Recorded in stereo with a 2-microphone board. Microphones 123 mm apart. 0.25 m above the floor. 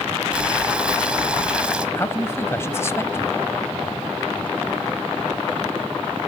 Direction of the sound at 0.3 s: 10° right (ahead or behind).